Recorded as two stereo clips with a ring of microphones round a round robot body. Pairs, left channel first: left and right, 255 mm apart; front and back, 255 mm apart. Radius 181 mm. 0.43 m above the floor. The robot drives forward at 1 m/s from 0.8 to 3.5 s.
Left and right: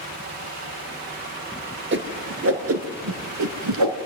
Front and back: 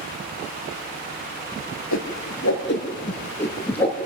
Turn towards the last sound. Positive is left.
turn(degrees=-85)